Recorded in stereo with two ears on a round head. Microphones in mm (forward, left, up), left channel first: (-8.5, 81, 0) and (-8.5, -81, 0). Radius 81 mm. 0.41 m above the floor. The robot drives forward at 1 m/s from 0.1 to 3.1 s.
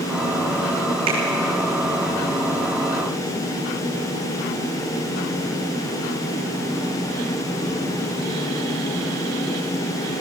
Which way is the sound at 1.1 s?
35° right (ahead or behind).